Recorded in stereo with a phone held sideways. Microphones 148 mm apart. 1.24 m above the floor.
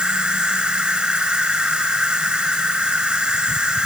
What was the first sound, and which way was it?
An insect, 5° right (ahead or behind).